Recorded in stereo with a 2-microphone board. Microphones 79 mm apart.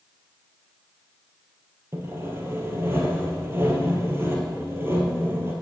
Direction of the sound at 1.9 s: 30° right (ahead or behind).